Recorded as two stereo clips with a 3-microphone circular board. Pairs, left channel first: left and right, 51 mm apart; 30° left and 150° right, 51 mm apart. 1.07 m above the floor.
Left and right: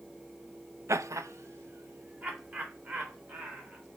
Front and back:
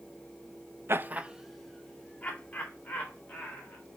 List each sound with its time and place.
0.9 s laughter: 115° right, 0.8 m; by 3.8 s 30° right, 4.5 m